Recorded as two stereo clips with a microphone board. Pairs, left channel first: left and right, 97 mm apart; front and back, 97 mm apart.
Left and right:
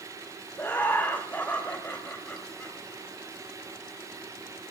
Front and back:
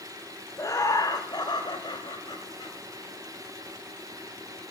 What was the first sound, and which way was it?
Laughter, 30° left.